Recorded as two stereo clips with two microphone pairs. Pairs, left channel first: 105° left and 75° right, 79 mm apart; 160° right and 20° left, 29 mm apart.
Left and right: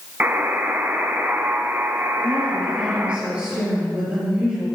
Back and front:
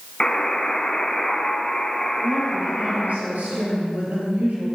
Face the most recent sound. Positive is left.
turn(degrees=0)